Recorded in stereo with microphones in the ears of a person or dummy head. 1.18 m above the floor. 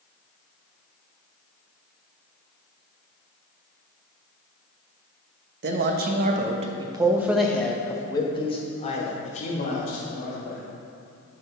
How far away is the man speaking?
About 1.1 m.